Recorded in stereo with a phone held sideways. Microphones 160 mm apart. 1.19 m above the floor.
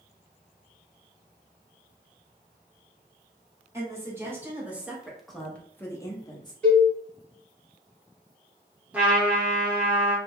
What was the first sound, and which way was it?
A woman speaking, 15° right (ahead or behind).